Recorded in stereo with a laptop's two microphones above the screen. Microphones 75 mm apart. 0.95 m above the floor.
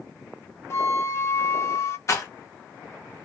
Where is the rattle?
40° left (ahead or behind), 1.0 m.